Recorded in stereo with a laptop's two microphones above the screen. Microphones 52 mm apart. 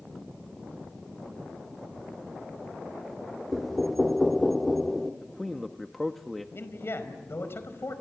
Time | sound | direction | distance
3.5 | knocking | centre (ahead or behind) | 1.6 m
5.2 | a man speaking | centre (ahead or behind) | 1.2 m
6.5 | a man speaking | 50° left (ahead or behind) | 5 m